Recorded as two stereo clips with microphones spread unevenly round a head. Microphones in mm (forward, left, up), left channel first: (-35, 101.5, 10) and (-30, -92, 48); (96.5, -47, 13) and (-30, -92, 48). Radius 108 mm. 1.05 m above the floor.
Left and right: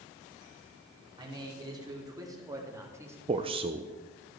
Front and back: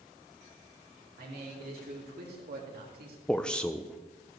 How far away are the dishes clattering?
No dishes clattering in this recording.